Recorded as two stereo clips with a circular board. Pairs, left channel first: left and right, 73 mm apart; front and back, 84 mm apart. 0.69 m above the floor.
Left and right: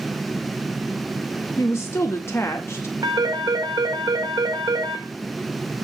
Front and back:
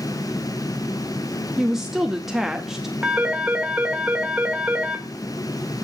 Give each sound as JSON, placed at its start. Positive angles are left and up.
{"t": 1.6, "sound": "a woman speaking", "azimuth_deg": 100, "distance_m": 0.7}
{"t": 3.0, "sound": "a phone ringing", "azimuth_deg": -100, "distance_m": 1.6}